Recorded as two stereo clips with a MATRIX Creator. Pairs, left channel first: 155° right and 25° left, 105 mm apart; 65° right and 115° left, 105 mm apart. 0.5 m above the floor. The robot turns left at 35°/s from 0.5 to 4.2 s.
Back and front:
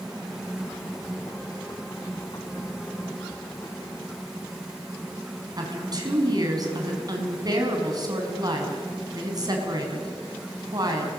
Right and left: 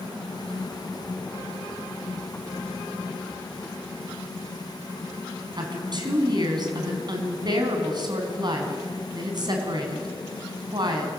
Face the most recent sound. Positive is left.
turn(degrees=70)